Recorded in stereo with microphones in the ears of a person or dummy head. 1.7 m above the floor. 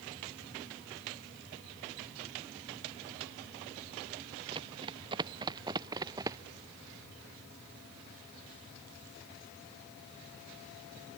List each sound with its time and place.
4.5 s running footsteps: 25° right (ahead or behind); by 6.4 s 20° right (ahead or behind)